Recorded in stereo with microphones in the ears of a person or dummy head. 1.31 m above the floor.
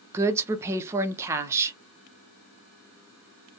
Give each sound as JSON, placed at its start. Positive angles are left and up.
{"t": 0.1, "sound": "a woman speaking", "side_deg": -20, "distance_m": 0.6}